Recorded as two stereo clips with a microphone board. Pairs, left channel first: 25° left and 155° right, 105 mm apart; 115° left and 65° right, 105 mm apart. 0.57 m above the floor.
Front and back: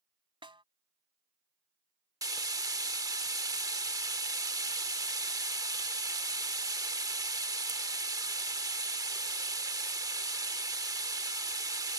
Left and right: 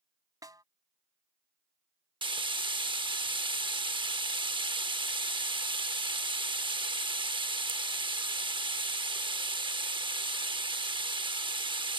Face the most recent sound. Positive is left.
turn(degrees=-105)